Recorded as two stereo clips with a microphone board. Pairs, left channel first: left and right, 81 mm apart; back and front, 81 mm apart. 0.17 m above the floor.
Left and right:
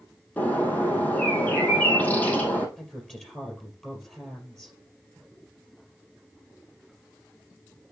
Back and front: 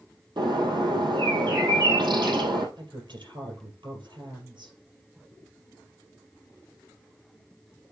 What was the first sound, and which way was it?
A bird, 20° left.